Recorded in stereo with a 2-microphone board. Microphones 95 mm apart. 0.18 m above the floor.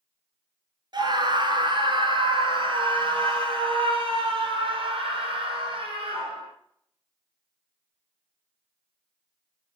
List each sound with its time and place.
0.9 s a scream: 50° right (ahead or behind), 2 m; by 6.5 s 75° right (ahead or behind), 5.5 m